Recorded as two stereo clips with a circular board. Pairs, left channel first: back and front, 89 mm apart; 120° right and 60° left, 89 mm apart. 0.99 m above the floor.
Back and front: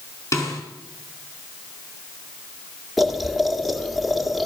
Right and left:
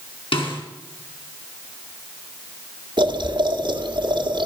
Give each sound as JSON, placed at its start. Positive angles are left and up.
{"t": 0.3, "sound": "a snare drum", "azimuth_deg": -125, "distance_m": 4.0}
{"t": 3.0, "sound": "boiling", "azimuth_deg": 90, "distance_m": 1.8}